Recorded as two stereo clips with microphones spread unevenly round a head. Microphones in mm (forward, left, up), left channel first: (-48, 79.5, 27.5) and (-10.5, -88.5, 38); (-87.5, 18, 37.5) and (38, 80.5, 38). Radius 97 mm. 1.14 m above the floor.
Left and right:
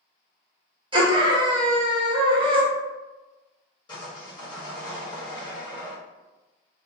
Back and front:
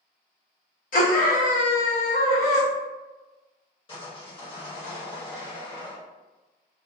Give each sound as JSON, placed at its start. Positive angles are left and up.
{"t": 0.9, "sound": "a scream", "azimuth_deg": -140, "distance_m": 1.1}
{"t": 3.9, "sound": "sawing", "azimuth_deg": 165, "distance_m": 1.2}